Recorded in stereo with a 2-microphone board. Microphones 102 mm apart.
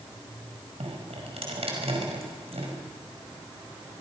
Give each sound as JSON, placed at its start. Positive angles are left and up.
{"t": 0.8, "sound": "dripping", "side_deg": -80, "distance_m": 5.5}